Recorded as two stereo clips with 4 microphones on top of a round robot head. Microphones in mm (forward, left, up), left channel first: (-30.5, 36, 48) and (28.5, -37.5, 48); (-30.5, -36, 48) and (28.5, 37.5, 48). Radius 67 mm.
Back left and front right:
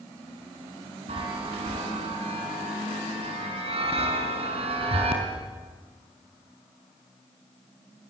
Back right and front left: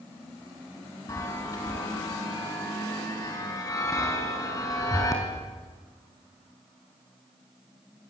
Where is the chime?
70° right, 4.5 m.